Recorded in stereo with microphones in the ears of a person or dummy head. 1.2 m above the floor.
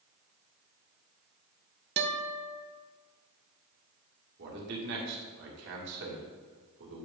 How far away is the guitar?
About 0.7 m.